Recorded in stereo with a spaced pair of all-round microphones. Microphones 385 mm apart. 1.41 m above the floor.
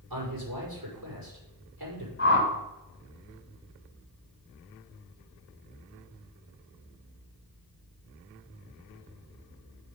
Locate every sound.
0.1 s a man speaking: 60° right (ahead or behind), 5 m
2.2 s a whoosh: 30° left (ahead or behind), 4 m